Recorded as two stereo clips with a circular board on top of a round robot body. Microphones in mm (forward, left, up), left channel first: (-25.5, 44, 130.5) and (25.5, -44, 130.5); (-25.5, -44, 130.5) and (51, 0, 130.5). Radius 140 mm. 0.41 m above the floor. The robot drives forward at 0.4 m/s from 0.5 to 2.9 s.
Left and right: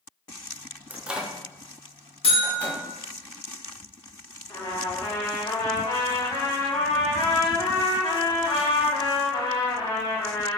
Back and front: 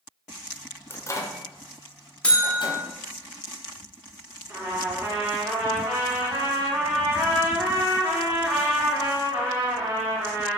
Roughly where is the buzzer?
Behind left.